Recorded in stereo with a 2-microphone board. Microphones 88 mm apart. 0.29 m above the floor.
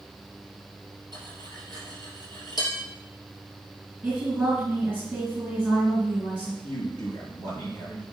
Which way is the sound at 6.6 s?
50° left (ahead or behind).